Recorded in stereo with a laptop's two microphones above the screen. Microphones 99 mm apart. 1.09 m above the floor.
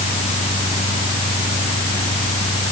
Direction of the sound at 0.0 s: 75° left (ahead or behind).